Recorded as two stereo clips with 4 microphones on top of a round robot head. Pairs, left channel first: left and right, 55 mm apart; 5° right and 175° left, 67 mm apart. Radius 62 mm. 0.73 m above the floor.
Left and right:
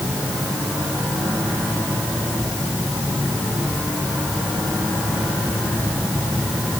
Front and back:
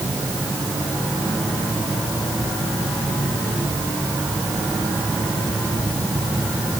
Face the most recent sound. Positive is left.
No sound to turn to.